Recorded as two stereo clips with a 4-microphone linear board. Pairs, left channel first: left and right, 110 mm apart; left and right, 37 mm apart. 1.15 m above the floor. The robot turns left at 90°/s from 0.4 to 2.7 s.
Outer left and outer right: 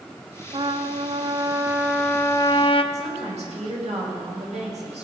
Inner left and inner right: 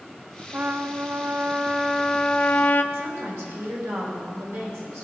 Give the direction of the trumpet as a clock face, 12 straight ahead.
2 o'clock.